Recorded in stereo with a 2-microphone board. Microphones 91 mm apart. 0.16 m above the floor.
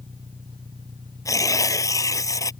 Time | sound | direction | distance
0.0 | an engine running | 55° right (ahead or behind) | ?
1.2 | tearing paper | 40° left (ahead or behind) | ?